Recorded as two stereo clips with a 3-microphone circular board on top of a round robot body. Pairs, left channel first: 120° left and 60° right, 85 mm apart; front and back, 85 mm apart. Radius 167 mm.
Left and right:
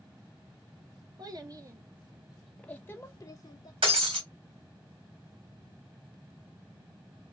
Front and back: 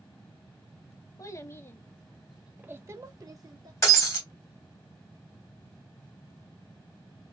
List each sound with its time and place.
1.2 s a child speaking: 45° right, 1.0 m; by 3.7 s 150° left, 1.1 m
3.8 s breaking glass: 55° right, 1.8 m